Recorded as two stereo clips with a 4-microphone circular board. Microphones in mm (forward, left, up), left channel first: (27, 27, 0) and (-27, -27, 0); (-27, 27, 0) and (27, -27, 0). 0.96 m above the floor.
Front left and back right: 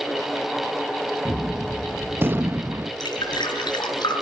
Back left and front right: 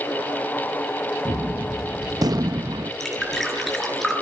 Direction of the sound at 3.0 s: 45° left.